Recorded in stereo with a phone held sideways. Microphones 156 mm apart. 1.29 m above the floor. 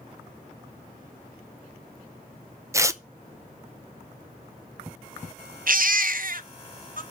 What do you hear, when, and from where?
2.7 s tearing paper: 20° right (ahead or behind), 0.6 m
5.7 s a baby crying: 65° right (ahead or behind), 0.7 m